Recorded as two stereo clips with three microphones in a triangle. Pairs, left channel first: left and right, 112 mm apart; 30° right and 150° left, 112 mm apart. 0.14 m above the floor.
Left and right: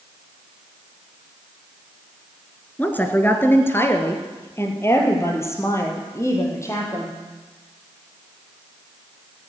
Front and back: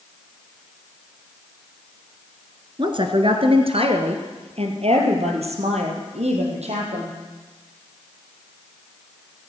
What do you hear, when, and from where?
2.8 s a woman speaking: 160° left, 1.6 m; by 7.2 s 155° left, 4.5 m